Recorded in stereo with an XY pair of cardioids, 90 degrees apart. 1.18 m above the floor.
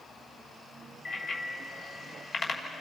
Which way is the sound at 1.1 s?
55° left.